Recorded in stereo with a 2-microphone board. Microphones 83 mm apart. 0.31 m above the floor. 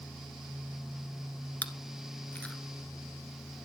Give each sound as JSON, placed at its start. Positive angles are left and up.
{"t": 1.6, "sound": "chewing", "side_deg": 20, "distance_m": 1.1}